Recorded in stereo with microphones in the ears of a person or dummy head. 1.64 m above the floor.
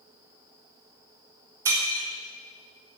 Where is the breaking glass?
15° right (ahead or behind), 1.6 m.